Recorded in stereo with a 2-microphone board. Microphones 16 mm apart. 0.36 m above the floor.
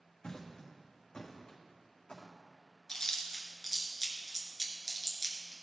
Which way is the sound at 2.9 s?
50° left (ahead or behind).